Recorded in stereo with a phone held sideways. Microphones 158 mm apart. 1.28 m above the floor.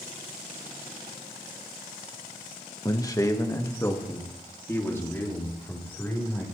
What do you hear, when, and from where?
2.9 s a man speaking: 25° left (ahead or behind), 1.1 m; by 6.4 s 15° left (ahead or behind), 4 m